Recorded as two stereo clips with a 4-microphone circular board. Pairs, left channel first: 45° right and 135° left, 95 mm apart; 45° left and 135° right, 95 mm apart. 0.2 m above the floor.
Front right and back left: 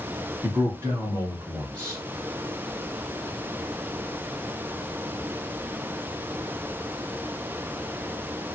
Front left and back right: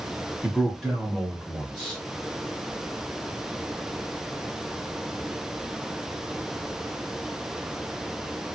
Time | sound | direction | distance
0.4 | a man speaking | 145° left | 1.4 m